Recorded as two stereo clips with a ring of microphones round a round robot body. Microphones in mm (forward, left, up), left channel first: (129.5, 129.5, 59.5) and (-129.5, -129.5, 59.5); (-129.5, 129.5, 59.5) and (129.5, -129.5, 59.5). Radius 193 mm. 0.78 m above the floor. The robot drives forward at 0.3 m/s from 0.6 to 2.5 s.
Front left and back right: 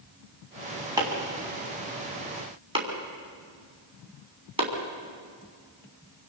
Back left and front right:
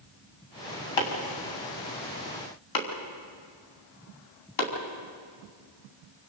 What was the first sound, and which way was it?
Chopping, 145° left.